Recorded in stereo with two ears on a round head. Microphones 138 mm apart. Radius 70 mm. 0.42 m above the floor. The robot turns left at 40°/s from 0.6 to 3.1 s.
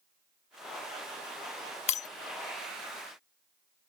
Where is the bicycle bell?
I don't hear a bicycle bell.